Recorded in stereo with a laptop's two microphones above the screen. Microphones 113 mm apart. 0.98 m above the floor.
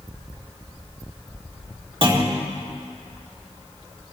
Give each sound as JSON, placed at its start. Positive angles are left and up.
{"t": 2.0, "sound": "a clunk", "side_deg": -50, "distance_m": 2.0}